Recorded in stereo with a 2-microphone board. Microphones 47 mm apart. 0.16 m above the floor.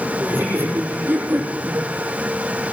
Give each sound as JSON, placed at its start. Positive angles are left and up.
{"t": 0.2, "sound": "laughter", "side_deg": -50, "distance_m": 6.5}